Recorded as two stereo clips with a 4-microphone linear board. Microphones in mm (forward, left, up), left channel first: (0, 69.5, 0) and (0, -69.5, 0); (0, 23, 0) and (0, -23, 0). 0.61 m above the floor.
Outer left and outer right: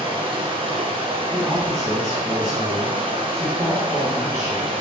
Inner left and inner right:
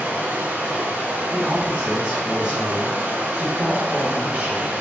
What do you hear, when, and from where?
0.0 s running water: 40° right (ahead or behind), 0.7 m
1.3 s a man speaking: 25° right (ahead or behind), 1.9 m